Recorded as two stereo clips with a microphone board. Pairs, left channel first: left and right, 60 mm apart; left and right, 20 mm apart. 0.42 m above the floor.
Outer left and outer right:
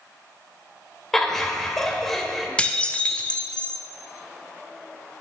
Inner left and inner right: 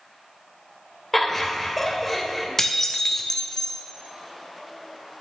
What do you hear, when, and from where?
1.1 s laughter: 5° left (ahead or behind), 1.2 m
2.6 s dishes clattering: 20° left (ahead or behind), 0.5 m